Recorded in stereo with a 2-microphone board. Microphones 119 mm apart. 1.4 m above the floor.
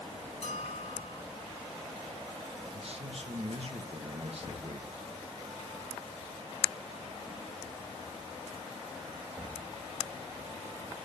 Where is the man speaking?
55° right (ahead or behind), 1.2 m.